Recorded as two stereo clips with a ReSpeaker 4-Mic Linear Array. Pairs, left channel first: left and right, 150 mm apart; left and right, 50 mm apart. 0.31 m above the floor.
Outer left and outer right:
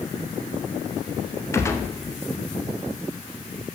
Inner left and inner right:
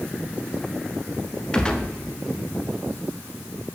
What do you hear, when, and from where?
1.5 s a gunshot: 20° left (ahead or behind), 0.8 m